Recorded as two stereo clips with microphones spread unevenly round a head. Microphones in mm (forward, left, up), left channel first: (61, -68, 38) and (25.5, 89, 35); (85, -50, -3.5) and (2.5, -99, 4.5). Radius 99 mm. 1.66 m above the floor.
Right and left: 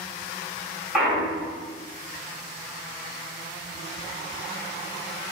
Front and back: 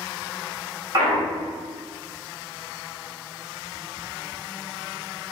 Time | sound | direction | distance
0.9 | a clunk | 170° right | 0.7 m